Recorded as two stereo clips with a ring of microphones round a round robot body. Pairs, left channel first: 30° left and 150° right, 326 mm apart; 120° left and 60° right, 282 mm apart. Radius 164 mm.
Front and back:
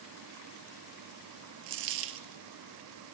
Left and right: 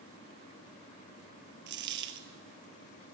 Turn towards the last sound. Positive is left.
turn(degrees=-110)